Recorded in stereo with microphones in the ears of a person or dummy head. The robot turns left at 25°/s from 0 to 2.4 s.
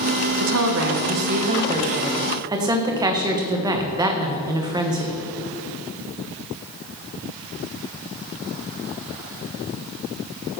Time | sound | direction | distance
0.4 | a woman speaking | 120° right | 0.8 m